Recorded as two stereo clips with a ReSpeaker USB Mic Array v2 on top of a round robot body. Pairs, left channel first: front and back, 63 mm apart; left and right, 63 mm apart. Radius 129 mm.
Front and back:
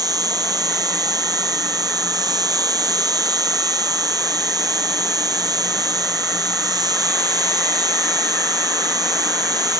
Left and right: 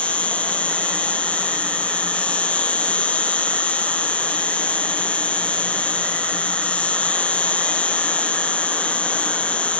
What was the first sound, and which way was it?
An insect, 160° left.